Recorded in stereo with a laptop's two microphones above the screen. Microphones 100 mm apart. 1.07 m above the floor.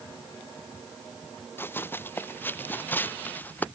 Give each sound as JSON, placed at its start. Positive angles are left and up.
{"t": 1.6, "sound": "running footsteps", "side_deg": 20}